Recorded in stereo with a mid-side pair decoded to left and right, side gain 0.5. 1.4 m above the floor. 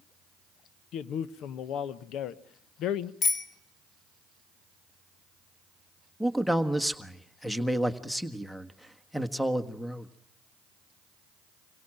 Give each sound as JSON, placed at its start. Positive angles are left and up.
{"t": 0.9, "sound": "a man speaking", "azimuth_deg": 70, "distance_m": 1.0}
{"t": 3.2, "sound": "a bicycle bell", "azimuth_deg": 55, "distance_m": 2.5}
{"t": 6.2, "sound": "a man speaking", "azimuth_deg": 5, "distance_m": 1.5}